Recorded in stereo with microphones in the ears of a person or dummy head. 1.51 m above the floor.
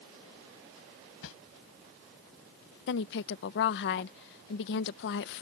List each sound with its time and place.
1.2 s a whoosh: 80° left
2.9 s a woman speaking: 60° left (ahead or behind)